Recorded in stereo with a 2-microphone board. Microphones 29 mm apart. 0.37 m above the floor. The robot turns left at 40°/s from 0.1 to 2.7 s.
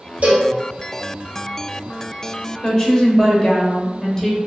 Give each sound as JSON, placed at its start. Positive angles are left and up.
{"t": 0.2, "sound": "a cowbell", "side_deg": -60, "distance_m": 1.7}
{"t": 2.6, "sound": "a woman speaking", "side_deg": 15, "distance_m": 1.1}